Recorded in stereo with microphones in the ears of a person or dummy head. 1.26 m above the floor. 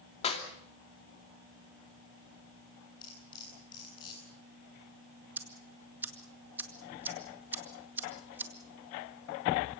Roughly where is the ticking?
Centre.